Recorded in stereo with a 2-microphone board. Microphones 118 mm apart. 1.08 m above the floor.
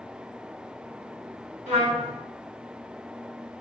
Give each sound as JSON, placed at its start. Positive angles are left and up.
{"t": 1.7, "sound": "a trumpet", "side_deg": -75, "distance_m": 1.5}